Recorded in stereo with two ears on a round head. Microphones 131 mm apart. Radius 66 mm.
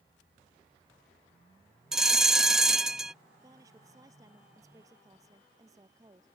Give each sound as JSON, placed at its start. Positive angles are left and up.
{"t": 1.9, "sound": "a bell", "side_deg": -5}
{"t": 3.4, "sound": "a woman speaking", "side_deg": -25}